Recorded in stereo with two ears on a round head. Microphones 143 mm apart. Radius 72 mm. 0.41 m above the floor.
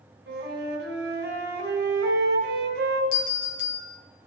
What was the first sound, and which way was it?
A flute, 75° right (ahead or behind).